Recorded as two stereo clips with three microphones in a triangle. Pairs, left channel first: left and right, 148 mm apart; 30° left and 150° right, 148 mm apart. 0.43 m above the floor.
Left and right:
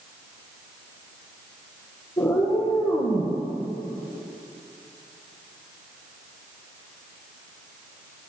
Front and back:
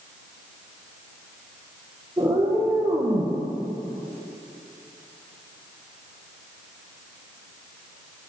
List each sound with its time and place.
2.2 s a cat meowing: 140° left, 4 m